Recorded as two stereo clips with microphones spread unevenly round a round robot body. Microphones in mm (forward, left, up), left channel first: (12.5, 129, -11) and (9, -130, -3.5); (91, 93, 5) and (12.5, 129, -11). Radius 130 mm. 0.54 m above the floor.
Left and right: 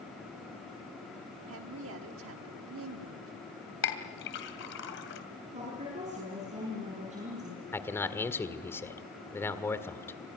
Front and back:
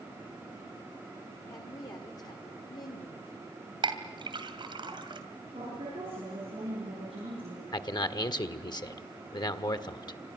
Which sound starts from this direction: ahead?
A man speaking, at 7.7 s.